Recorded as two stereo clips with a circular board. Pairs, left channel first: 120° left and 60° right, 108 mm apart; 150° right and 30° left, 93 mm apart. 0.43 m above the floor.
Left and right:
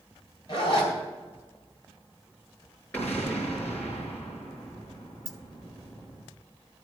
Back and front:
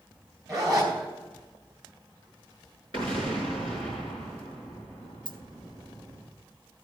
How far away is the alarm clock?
No alarm clock in this recording.